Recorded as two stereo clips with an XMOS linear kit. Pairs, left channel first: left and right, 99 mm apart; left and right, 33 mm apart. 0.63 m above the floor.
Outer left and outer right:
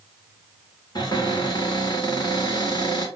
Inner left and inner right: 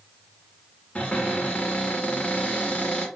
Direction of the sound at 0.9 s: 45° left (ahead or behind).